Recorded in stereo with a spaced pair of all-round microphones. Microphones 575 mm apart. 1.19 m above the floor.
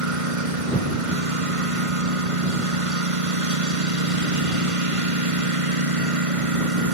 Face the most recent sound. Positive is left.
turn(degrees=-65)  # may be behind; listen again after turning